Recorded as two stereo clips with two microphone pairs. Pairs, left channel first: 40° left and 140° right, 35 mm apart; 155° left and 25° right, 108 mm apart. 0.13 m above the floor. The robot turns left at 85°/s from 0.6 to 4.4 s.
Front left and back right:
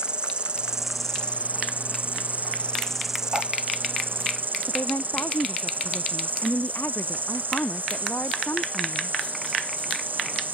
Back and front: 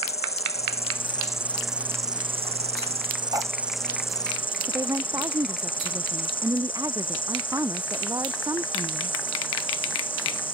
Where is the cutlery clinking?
80° right; by 3.5 s 90° right.